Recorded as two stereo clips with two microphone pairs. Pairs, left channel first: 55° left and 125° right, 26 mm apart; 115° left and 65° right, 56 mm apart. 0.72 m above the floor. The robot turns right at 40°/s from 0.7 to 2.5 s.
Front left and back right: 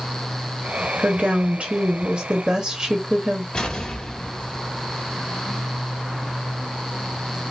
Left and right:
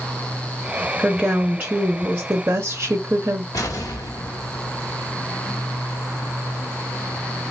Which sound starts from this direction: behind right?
A woman speaking, at 1.0 s.